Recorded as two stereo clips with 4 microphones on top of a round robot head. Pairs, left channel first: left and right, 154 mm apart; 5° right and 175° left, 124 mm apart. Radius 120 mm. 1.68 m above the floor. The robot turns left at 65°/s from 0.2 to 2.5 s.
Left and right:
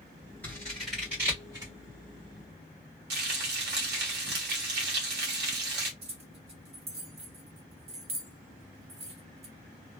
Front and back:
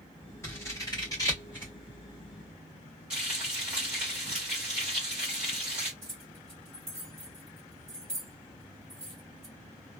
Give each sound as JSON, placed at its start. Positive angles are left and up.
{"t": 0.4, "sound": "scissors", "azimuth_deg": 25, "distance_m": 1.2}
{"t": 3.1, "sound": "frying", "azimuth_deg": -100, "distance_m": 1.1}
{"t": 6.0, "sound": "keys jangling", "azimuth_deg": -110, "distance_m": 0.6}